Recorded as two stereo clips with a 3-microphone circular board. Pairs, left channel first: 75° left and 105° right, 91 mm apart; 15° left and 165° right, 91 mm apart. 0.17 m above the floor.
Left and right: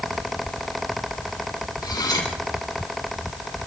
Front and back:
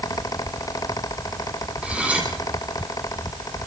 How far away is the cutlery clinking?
About 4.5 m.